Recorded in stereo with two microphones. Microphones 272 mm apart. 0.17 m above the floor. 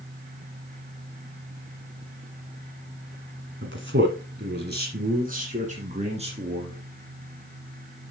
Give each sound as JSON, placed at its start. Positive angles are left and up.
{"t": 3.6, "sound": "a man speaking", "side_deg": -45, "distance_m": 1.5}